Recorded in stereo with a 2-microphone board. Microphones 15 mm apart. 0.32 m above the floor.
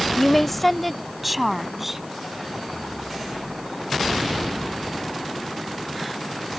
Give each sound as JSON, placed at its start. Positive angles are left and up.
{"t": 0.2, "sound": "a woman speaking", "side_deg": 20}